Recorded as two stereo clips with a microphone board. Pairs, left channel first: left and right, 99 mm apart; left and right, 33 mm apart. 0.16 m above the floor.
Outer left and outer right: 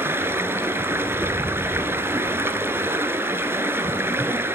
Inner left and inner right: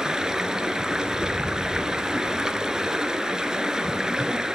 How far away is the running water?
About 1.1 m.